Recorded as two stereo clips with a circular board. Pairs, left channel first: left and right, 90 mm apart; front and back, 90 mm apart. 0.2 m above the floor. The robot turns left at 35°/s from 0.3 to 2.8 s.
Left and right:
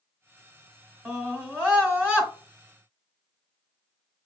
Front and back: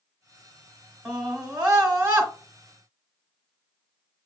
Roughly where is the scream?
Right.